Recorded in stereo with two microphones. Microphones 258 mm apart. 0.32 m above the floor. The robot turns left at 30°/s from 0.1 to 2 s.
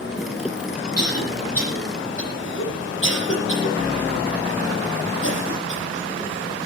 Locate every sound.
1.0 s a cough: 80° left, 10 m; by 5.8 s 50° left (ahead or behind), 10 m